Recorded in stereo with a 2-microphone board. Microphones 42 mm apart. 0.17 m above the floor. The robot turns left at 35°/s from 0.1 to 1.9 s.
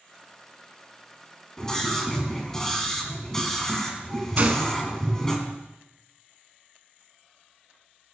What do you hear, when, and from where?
1.6 s a scream: 15° left (ahead or behind), 1.6 m
4.4 s a gunshot: 40° right (ahead or behind), 0.8 m